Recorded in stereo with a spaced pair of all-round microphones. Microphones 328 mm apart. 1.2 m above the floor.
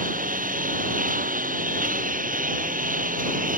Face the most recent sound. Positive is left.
turn(degrees=-25)  # may be behind; listen again after turning